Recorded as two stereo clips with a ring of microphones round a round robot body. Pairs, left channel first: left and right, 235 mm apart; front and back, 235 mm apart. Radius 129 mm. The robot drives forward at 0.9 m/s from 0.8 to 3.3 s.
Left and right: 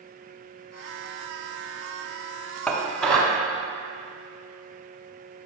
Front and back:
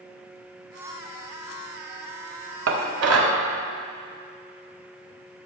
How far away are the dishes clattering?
About 1.1 m.